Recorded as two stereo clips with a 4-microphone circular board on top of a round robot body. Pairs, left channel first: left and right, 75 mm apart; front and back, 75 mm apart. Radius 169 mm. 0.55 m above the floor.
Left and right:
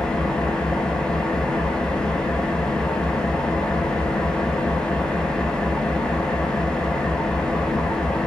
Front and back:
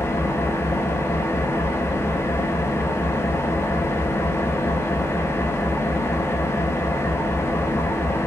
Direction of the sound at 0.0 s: 20° left.